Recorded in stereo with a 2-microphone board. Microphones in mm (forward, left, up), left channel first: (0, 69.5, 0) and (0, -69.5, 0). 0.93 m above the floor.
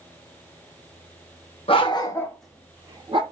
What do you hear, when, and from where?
1.7 s a dog barking: 45° left (ahead or behind), 0.7 m; by 3.2 s 40° right (ahead or behind), 0.7 m